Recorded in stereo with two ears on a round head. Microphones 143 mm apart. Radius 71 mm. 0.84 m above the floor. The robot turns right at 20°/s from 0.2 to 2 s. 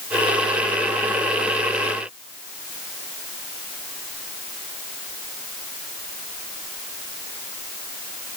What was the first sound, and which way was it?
Only background noise.